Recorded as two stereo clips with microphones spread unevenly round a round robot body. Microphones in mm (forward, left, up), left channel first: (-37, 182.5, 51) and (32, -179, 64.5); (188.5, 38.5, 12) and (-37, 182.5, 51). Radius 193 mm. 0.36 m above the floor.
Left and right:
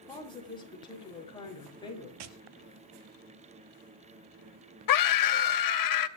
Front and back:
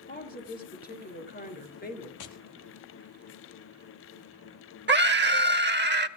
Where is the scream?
100° left, 2 m.